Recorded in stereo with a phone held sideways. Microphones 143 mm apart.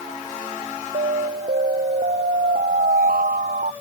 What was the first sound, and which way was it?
An alarm, 90° right.